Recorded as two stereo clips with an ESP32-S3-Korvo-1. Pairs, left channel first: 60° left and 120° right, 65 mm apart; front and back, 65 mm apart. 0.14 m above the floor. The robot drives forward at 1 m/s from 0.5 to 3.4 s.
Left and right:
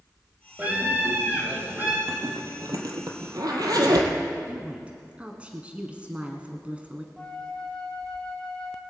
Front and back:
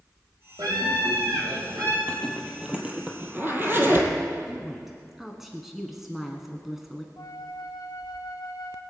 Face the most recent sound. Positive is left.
turn(degrees=-20)